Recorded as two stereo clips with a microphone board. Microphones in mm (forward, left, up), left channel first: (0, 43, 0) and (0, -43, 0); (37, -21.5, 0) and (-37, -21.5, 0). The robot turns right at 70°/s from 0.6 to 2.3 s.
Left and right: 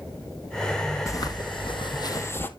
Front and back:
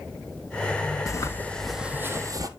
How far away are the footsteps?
About 1.4 m.